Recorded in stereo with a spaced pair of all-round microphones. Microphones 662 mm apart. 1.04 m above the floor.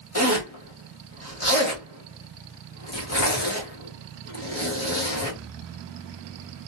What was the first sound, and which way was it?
A zipper, 25° left (ahead or behind).